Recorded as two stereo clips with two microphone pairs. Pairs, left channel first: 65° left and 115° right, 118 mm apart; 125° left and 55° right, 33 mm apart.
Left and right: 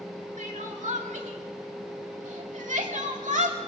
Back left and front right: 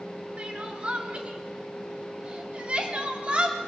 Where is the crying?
115° right, 2 m.